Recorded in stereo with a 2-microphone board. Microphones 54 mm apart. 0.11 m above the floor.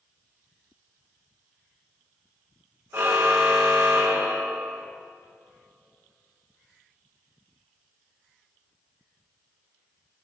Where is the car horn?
50° right (ahead or behind), 3.5 m.